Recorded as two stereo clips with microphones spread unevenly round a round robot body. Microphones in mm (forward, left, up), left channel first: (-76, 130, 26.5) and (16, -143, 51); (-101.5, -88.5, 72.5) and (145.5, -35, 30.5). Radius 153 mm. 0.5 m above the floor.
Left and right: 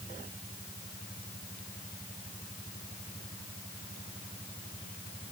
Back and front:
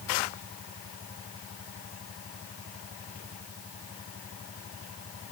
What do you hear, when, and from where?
Only background noise.